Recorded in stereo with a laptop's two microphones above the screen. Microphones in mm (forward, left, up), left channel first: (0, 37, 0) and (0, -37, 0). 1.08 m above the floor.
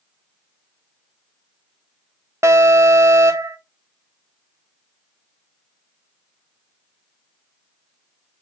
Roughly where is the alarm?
Right.